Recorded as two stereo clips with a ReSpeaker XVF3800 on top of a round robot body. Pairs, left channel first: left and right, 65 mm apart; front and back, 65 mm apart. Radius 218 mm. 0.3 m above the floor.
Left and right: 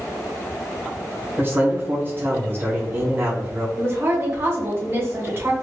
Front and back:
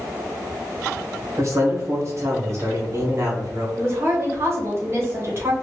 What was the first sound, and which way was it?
A man speaking, 145° right.